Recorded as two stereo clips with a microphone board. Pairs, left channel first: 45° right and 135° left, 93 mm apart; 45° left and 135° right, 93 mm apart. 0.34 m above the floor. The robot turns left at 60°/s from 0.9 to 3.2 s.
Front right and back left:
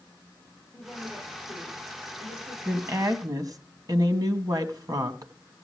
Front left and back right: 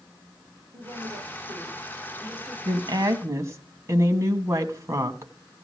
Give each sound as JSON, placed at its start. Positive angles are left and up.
{"t": 0.7, "sound": "a woman speaking", "azimuth_deg": -125, "distance_m": 9.5}
{"t": 2.6, "sound": "a woman speaking", "azimuth_deg": -155, "distance_m": 2.0}